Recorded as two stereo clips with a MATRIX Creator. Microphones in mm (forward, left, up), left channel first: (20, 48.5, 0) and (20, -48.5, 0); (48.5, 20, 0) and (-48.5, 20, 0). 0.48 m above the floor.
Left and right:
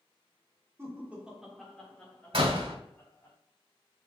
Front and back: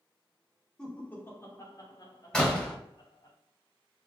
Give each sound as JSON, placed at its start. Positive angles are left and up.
{"t": 0.8, "sound": "laughter", "azimuth_deg": -75, "distance_m": 1.4}
{"t": 2.3, "sound": "a door slam", "azimuth_deg": -80, "distance_m": 1.2}